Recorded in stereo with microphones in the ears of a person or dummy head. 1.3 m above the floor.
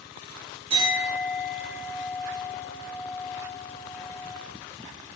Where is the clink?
55° right (ahead or behind), 1.7 m.